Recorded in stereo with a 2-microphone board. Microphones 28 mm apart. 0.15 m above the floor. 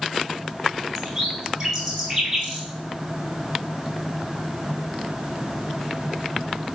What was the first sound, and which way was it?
A bird, 20° right (ahead or behind).